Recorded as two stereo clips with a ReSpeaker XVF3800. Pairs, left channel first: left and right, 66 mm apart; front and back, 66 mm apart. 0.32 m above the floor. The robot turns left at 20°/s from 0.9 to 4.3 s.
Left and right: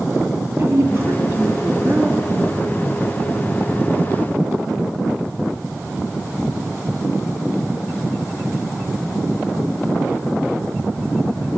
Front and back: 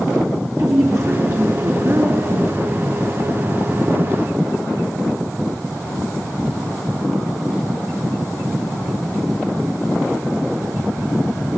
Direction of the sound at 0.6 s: 150° right.